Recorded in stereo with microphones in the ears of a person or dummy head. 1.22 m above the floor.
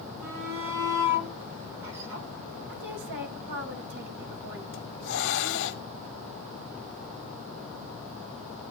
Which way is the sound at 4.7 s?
75° left (ahead or behind).